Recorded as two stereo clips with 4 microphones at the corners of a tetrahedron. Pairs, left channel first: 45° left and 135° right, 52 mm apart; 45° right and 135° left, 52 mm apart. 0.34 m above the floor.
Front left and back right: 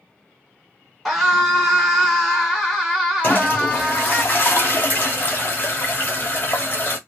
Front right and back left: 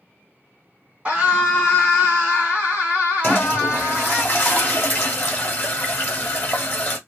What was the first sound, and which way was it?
A scream, 135° left.